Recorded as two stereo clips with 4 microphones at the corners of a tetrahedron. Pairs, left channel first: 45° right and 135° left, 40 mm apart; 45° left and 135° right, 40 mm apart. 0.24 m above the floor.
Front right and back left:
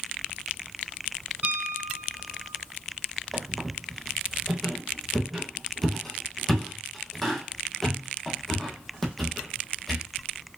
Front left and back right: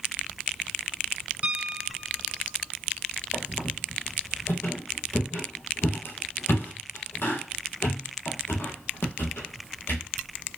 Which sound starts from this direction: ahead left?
A squeak, at 3.3 s.